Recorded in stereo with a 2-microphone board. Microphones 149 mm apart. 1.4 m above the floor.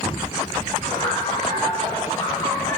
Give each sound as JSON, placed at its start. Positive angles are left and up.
{"t": 0.8, "sound": "laughter", "side_deg": 40, "distance_m": 4.5}